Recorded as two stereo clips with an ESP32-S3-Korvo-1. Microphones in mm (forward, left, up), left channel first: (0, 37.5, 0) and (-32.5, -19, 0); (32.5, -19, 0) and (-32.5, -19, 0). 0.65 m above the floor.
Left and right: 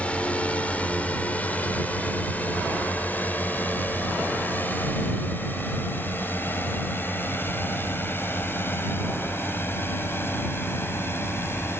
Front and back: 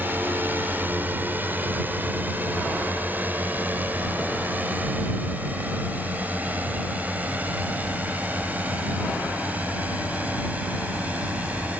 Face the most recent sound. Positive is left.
turn(degrees=115)